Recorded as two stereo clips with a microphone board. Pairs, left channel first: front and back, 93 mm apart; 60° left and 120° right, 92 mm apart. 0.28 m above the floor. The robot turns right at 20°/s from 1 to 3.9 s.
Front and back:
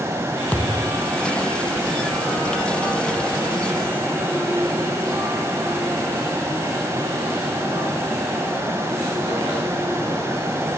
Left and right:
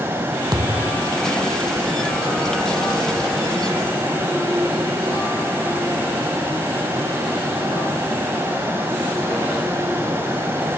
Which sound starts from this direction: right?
A thud, at 0.5 s.